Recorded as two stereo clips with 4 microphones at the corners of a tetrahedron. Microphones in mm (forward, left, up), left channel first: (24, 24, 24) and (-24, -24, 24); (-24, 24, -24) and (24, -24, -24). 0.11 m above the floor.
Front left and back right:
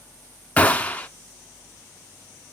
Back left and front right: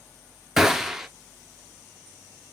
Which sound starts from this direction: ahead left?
A gunshot, at 0.6 s.